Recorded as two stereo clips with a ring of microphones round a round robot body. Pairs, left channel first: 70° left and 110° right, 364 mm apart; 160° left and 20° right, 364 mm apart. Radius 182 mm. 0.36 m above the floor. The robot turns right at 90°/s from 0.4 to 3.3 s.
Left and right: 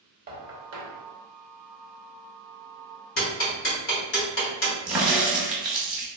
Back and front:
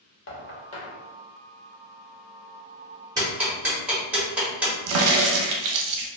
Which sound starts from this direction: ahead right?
A crack, at 4.9 s.